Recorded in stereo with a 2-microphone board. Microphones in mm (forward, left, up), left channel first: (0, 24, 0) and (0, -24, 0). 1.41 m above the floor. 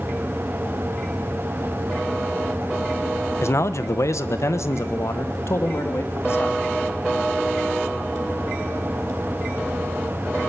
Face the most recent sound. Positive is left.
turn(degrees=60)  # may be behind; listen again after turning